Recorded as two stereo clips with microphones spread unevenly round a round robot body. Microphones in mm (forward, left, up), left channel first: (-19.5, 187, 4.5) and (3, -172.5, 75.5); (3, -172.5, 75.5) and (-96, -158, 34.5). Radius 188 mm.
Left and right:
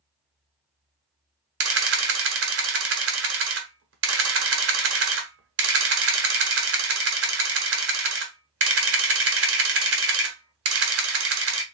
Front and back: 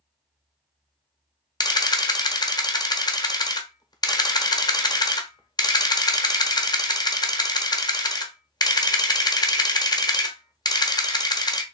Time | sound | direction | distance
1.6 | a camera shutter | 60° right | 1.1 m